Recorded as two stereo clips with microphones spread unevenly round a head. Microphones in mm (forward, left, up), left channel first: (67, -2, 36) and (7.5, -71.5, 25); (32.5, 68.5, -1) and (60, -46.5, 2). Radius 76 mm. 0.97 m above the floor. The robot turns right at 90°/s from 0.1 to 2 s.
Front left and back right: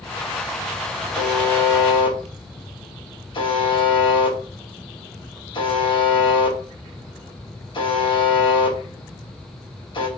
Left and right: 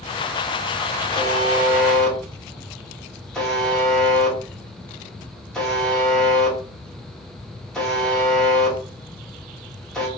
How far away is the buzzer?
About 1.6 m.